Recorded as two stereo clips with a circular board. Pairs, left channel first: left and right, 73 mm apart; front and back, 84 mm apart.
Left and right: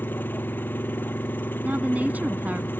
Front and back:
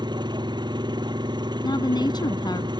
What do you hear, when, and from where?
0.0 s an engine running: 150° left
1.6 s a woman speaking: 25° right